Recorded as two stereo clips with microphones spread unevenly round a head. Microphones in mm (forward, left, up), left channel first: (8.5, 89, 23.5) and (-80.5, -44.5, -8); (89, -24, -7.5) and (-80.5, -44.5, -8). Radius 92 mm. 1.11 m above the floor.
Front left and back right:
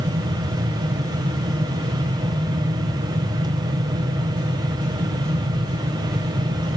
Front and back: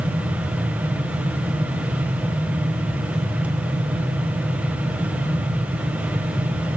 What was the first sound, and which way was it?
A fan, 95° right.